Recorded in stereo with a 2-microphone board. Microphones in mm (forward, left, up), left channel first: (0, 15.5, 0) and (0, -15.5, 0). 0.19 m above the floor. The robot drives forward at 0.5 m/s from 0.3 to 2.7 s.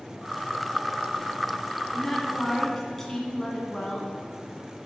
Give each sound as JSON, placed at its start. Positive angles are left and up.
{"t": 1.9, "sound": "a woman speaking", "side_deg": 15, "distance_m": 1.3}